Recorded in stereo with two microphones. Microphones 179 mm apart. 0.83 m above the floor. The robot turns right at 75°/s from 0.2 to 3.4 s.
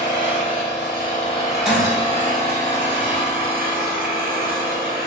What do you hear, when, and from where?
0.0 s an engine running: 65° left, 1.2 m; by 5.1 s 55° right, 1.2 m
1.6 s breaking glass: 5° right (ahead or behind), 1.1 m; by 2.3 s 45° right (ahead or behind), 1.1 m